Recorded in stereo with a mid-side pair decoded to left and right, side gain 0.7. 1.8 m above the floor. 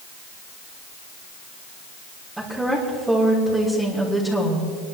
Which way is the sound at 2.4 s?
5° right.